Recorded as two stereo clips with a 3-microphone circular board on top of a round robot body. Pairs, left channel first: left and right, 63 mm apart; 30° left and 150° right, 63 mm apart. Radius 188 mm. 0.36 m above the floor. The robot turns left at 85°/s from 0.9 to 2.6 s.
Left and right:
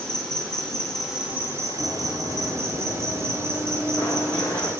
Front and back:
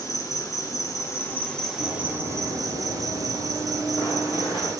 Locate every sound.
0.0 s an insect: 10° left, 1.3 m; by 4.8 s 135° right, 1.3 m
1.8 s running footsteps: straight ahead, 0.6 m; by 4.7 s 50° left, 1.8 m